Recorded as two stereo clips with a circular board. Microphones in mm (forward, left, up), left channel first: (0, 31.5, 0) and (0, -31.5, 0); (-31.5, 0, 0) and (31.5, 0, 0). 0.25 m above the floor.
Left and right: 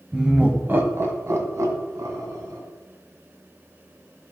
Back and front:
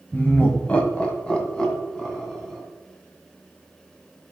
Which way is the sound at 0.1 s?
155° right.